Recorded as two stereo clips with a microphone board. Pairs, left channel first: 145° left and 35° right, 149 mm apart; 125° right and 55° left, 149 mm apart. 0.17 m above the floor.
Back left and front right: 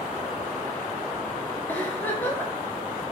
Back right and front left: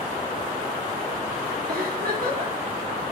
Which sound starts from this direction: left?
A giggle, at 1.7 s.